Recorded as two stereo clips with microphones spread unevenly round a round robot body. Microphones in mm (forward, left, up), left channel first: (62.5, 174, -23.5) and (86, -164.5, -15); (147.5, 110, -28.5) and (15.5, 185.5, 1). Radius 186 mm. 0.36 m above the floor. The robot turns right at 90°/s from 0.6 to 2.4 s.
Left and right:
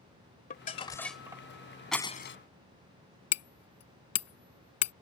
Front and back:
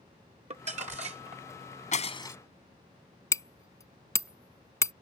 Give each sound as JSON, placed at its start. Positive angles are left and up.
{"t": 0.5, "sound": "crumpling", "azimuth_deg": 135}
{"t": 1.9, "sound": "breaking glass", "azimuth_deg": 5}
{"t": 3.3, "sound": "hammering", "azimuth_deg": 45}